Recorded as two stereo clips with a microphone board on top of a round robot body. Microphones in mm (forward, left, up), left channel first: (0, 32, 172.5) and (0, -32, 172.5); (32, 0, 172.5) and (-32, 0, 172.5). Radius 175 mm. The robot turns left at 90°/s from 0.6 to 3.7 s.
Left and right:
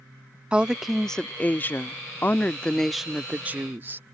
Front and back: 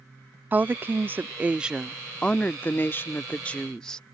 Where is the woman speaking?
150° right; by 4.0 s 70° right.